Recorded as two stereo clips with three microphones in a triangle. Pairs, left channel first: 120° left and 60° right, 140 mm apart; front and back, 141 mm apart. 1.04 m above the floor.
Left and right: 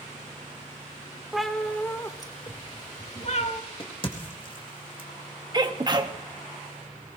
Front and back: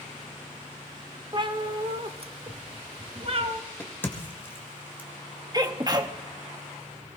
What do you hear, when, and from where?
1.3 s a cat meowing: 145° right, 0.9 m; by 3.6 s 140° left, 1.4 m
3.8 s a crack: 75° left, 1.7 m
5.5 s a sneeze: 120° right, 1.2 m